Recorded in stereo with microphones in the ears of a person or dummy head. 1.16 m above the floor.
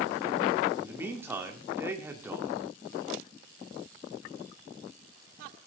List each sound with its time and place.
0.8 s a man speaking: 20° right (ahead or behind), 2.5 m